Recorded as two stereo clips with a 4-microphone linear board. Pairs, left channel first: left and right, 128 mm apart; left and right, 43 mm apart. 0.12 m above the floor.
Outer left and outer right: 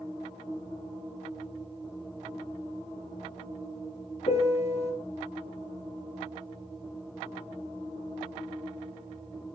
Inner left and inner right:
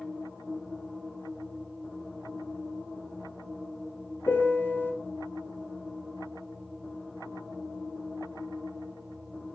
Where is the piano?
55° left (ahead or behind), 1.5 m.